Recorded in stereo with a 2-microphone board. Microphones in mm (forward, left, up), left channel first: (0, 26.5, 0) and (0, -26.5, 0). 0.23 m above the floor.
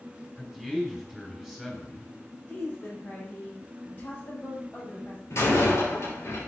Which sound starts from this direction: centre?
A man speaking, at 0.4 s.